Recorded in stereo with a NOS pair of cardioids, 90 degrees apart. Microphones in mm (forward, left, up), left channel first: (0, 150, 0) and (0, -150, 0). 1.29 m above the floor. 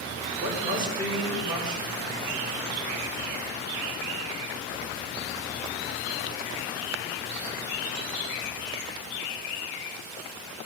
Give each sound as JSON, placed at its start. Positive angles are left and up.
{"t": 0.4, "sound": "a woman speaking", "azimuth_deg": -15, "distance_m": 4.0}